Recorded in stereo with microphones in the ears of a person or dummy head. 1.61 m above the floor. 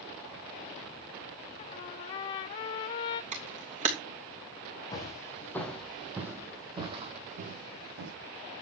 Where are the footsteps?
20° left (ahead or behind), 3.5 m; by 8.1 s 60° right (ahead or behind), 3.5 m.